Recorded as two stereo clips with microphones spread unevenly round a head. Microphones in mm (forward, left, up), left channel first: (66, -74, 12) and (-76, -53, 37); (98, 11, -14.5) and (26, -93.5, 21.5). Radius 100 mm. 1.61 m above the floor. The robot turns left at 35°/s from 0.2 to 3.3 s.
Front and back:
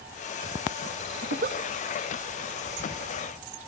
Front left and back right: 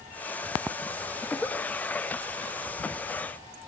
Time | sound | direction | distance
1.2 | a giggle | 150° left | 0.5 m